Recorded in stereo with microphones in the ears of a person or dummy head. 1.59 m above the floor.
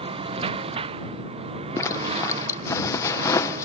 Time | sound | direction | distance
0.0 | a lawn mower | 35° right (ahead or behind) | ?
1.8 | a zipper | 20° left (ahead or behind) | ?